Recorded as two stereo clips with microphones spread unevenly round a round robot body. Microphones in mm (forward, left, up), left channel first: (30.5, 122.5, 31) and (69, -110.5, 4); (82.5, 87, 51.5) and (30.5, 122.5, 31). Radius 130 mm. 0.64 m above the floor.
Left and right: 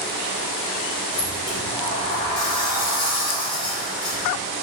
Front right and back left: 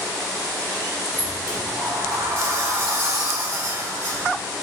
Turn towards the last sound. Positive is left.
turn(degrees=175)